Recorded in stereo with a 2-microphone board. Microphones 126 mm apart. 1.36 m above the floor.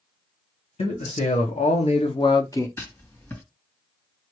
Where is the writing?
25° left (ahead or behind), 2.0 m.